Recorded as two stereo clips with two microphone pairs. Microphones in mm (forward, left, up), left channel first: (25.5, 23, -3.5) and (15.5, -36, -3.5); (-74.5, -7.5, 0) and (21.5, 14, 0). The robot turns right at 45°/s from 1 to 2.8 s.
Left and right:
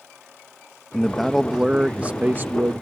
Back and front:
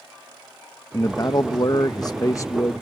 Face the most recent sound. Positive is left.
turn(degrees=-115)